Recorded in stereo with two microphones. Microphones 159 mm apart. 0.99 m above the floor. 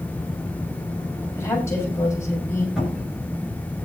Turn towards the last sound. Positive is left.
turn(degrees=-5)  # may be behind; listen again after turning